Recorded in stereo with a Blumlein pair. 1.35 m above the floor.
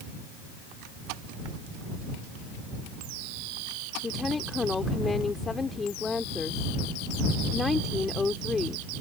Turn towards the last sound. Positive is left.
turn(degrees=15)